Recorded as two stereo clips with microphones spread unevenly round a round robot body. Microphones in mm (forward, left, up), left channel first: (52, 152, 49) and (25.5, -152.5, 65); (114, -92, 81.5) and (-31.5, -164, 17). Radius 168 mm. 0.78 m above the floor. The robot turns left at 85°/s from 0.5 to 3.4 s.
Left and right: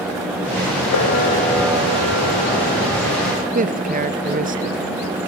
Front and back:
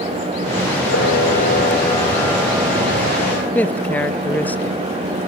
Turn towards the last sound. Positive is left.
turn(degrees=-100)